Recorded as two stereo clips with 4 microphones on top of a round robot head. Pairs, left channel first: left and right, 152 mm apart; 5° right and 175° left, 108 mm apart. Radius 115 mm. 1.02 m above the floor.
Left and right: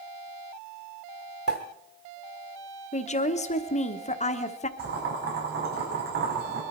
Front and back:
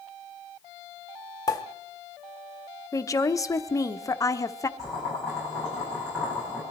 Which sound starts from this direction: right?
Boiling, at 4.8 s.